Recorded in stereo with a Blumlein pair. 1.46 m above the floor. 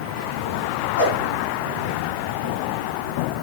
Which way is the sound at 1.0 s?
70° left.